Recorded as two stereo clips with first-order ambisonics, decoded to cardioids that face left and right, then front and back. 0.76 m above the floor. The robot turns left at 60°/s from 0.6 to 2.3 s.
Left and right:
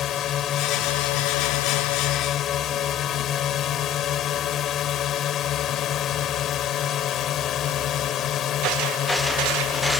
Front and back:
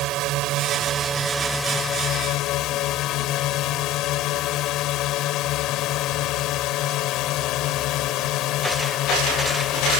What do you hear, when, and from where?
0.0 s a drone: 140° left; by 10.0 s 40° left